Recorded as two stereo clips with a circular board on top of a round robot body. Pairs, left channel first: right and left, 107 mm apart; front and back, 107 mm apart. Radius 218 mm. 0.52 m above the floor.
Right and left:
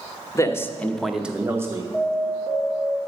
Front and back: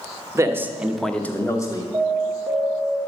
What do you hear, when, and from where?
0.3 s a man speaking: 135° right, 1.2 m; by 1.8 s 40° left, 1.3 m
1.9 s an alarm: 80° right, 2.0 m